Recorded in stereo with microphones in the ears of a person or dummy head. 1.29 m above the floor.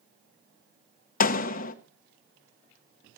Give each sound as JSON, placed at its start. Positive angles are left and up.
{"t": 1.2, "sound": "a door slam", "side_deg": 45, "distance_m": 0.8}